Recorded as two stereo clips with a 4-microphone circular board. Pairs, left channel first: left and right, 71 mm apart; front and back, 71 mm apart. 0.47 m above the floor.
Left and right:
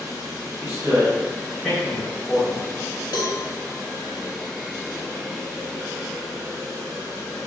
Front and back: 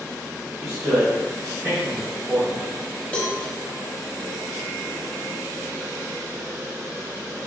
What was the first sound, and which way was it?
A man speaking, 130° right.